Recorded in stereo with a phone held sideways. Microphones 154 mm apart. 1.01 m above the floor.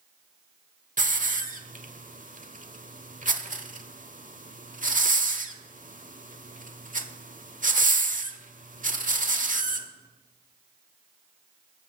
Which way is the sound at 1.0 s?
60° right (ahead or behind).